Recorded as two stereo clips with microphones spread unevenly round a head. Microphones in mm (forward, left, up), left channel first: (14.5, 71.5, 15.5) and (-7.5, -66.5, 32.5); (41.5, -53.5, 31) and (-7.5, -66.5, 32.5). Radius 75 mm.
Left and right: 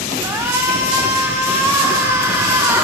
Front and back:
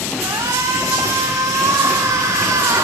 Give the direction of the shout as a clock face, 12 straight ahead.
6 o'clock.